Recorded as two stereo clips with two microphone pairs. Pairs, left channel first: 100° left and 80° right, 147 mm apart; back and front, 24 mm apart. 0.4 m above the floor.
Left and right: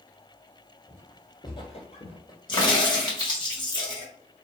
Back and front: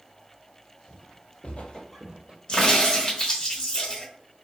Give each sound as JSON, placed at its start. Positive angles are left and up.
{"t": 0.9, "sound": "footsteps", "azimuth_deg": 175, "distance_m": 1.4}
{"t": 2.5, "sound": "a crack", "azimuth_deg": 145, "distance_m": 1.0}